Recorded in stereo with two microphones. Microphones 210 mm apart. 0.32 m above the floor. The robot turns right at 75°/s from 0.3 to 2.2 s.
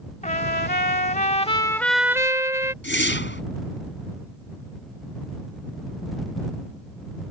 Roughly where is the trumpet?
Ahead left.